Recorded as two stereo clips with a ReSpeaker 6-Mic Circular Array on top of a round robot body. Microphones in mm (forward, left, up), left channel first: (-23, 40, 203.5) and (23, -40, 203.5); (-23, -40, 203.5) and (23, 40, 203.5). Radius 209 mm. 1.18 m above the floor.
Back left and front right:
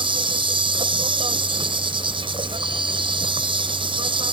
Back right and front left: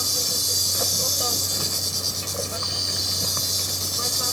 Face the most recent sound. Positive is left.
turn(degrees=-30)